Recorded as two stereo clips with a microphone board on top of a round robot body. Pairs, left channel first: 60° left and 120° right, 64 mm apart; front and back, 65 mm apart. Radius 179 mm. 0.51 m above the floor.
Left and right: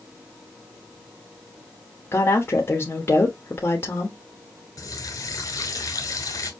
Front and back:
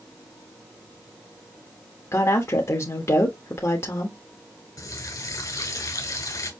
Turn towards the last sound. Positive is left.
turn(degrees=30)